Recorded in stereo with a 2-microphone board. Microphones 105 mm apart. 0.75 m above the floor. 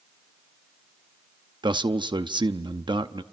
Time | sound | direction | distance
1.6 | a man speaking | 45° right (ahead or behind) | 0.8 m